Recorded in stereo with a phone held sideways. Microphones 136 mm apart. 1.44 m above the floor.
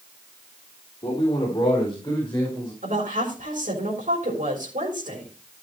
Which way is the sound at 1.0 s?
35° left (ahead or behind).